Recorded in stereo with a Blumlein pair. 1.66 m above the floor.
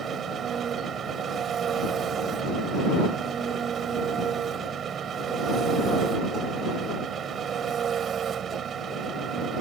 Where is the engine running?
25° right.